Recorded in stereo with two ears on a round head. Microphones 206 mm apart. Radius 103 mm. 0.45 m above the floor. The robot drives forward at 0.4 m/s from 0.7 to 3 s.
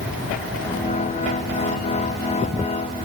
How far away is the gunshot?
No gunshot in this recording.